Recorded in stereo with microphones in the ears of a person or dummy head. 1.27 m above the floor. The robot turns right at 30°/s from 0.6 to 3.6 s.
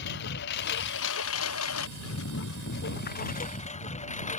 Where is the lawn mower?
55° left (ahead or behind); by 4.4 s 35° left (ahead or behind).